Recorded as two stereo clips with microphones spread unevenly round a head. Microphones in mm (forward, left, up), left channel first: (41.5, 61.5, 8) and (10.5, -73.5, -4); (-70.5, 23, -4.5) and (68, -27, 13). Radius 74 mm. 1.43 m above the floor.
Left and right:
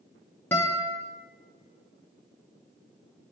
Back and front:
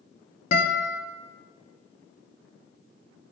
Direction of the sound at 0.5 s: 140° left.